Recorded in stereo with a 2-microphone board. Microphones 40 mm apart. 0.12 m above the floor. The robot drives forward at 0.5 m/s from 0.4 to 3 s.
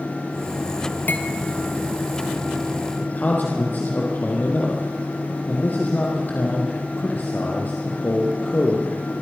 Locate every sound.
1.1 s cutlery clinking: 50° left (ahead or behind), 1.8 m
3.0 s a man speaking: 40° left (ahead or behind), 4 m